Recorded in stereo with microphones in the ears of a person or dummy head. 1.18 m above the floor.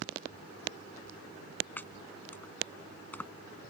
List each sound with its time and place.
1.8 s chopping: 10° left (ahead or behind)